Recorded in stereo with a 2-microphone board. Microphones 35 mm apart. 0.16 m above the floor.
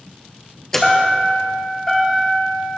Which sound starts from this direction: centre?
A chime, at 0.7 s.